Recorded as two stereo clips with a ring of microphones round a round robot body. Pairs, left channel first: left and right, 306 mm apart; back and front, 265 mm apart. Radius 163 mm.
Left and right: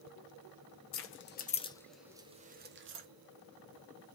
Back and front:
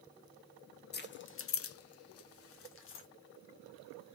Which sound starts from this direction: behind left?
Keys jangling, at 0.9 s.